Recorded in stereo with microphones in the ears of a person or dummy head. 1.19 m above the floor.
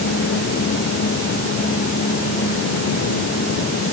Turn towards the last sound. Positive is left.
No sound to turn to.